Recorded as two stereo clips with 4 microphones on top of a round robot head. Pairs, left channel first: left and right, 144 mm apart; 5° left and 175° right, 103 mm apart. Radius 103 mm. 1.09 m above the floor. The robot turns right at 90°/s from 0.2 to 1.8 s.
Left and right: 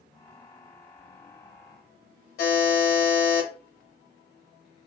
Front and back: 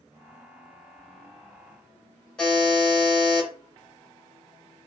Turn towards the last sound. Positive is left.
turn(degrees=90)